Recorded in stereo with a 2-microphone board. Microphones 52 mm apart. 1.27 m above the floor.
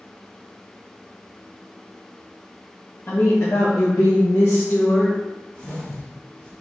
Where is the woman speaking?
50° left (ahead or behind), 1.3 m; by 5.2 s 65° left (ahead or behind), 1.6 m.